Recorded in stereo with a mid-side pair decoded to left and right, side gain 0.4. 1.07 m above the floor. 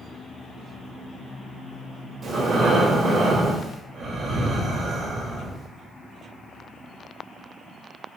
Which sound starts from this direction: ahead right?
Breathing, at 2.2 s.